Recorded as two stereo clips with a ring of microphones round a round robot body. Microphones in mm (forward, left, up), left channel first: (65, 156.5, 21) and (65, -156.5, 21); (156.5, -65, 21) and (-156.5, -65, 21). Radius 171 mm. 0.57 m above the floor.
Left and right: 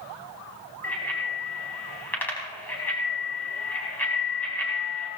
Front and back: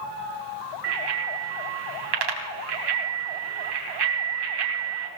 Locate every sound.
0.8 s a bicycle bell: 175° left, 3 m